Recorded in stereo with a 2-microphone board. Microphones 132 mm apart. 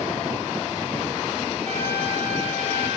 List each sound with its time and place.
1.6 s a trumpet: 50° right (ahead or behind), 7 m